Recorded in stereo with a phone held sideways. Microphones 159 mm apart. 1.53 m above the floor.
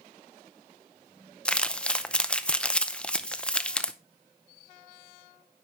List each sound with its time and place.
1.4 s crumpling: 5° left (ahead or behind), 0.6 m